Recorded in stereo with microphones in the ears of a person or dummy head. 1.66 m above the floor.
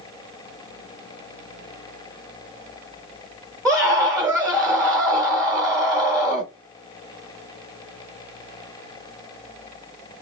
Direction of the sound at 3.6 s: Centre (ahead or behind).